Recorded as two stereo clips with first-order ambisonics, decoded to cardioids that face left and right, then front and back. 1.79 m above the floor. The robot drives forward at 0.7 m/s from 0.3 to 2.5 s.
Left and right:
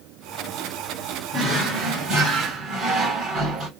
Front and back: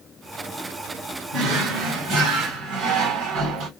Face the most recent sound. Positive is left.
turn(degrees=-160)